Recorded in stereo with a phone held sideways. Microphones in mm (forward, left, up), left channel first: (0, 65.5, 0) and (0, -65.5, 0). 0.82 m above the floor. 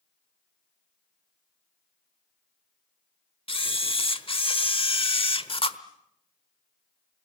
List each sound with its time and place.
3.5 s a camera shutter: 45° left (ahead or behind), 1.1 m